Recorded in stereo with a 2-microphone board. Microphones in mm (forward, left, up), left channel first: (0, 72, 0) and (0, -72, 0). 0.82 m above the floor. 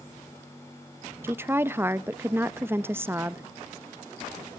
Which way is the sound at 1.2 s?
15° right (ahead or behind).